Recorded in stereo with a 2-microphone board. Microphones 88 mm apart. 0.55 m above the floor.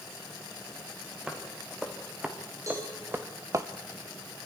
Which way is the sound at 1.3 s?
10° right (ahead or behind).